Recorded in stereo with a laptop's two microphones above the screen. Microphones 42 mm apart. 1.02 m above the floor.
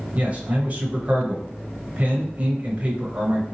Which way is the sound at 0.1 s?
35° right (ahead or behind).